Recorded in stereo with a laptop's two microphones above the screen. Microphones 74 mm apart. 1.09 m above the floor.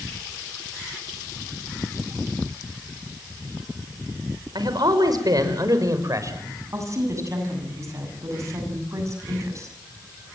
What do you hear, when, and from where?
4.5 s a man speaking: 65° right (ahead or behind), 5.5 m; by 6.5 s 45° right (ahead or behind), 6 m
6.7 s a woman speaking: 40° right (ahead or behind), 7.5 m